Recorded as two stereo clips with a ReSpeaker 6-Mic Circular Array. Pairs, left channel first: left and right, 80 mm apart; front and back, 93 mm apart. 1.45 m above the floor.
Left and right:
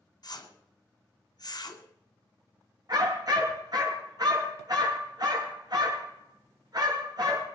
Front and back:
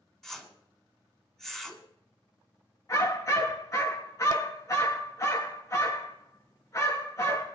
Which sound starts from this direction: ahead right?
A dog barking, at 2.9 s.